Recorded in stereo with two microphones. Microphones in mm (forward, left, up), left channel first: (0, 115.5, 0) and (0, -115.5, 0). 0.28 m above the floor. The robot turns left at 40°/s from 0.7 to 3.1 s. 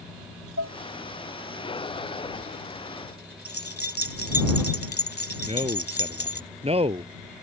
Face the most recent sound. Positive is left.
turn(degrees=-25)  # may be behind; listen again after turning